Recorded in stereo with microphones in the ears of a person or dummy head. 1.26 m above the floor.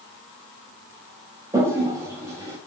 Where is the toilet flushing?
20° right (ahead or behind), 0.6 m.